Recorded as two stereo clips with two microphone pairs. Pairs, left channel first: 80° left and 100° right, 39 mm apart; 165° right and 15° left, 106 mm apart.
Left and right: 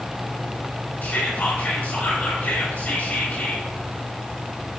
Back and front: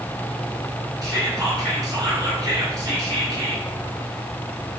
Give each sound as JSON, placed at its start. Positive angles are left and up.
{"t": 1.0, "sound": "whispering", "azimuth_deg": 60, "distance_m": 2.5}